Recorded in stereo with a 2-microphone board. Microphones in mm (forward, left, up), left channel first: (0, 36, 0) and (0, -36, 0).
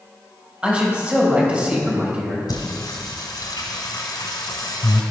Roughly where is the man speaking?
Centre.